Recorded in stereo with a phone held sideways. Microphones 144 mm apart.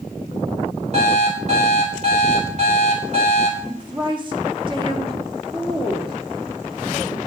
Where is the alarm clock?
50° right (ahead or behind), 3.5 m.